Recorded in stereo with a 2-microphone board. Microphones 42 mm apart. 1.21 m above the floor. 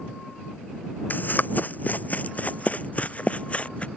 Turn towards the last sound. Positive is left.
turn(degrees=35)  # may be behind; listen again after turning